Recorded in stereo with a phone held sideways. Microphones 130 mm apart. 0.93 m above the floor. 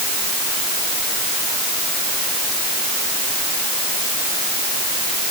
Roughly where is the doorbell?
I don't hear a doorbell.